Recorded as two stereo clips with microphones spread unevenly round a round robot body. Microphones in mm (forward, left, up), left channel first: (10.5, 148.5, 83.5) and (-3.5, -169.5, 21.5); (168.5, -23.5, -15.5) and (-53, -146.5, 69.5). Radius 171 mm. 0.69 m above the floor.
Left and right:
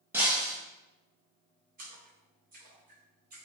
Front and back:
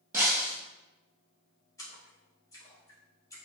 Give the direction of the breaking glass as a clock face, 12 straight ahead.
6 o'clock.